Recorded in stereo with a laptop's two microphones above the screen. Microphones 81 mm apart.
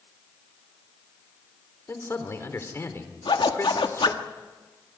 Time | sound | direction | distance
1.9 | a man speaking | 35° left (ahead or behind) | 3.5 m
3.2 | a zipper | 85° left | 1.5 m